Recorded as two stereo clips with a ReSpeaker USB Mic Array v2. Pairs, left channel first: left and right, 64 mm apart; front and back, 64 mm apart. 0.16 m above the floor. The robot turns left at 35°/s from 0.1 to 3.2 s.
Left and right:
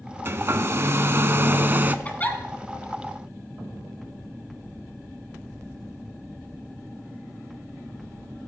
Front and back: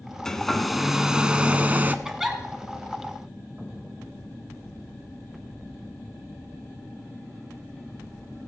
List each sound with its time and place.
0.2 s a hair dryer: 75° right, 0.5 m; by 1.9 s 135° right, 0.5 m
2.0 s a giggle: 110° left, 1.3 m; by 2.4 s 100° left, 1.3 m